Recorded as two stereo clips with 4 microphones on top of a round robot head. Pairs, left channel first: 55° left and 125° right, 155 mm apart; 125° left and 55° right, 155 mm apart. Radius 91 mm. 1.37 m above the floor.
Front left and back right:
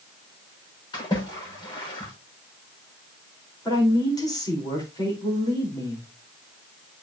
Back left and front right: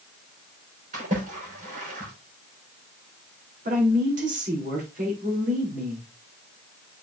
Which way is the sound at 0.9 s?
10° right.